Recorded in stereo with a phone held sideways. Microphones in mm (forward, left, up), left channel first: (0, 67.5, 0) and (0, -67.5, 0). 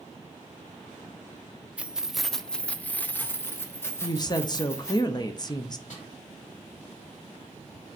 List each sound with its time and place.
1.8 s keys jangling: 10° right (ahead or behind), 0.5 m; by 5.0 s 20° left (ahead or behind), 1.6 m
4.0 s a woman speaking: 30° left (ahead or behind), 0.7 m
5.9 s a snare drum: 60° left (ahead or behind), 4.5 m